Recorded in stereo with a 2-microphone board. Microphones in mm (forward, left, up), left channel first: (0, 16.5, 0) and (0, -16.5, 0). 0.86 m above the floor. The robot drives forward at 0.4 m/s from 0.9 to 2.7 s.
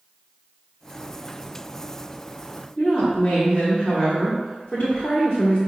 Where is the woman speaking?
30° left (ahead or behind), 1.3 m.